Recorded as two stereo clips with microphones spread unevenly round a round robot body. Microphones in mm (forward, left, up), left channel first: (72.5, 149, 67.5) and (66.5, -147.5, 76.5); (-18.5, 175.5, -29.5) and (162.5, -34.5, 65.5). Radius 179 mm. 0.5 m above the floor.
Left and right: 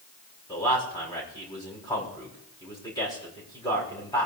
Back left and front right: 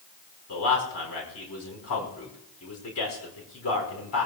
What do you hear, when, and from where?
0.5 s a man speaking: 165° left, 5 m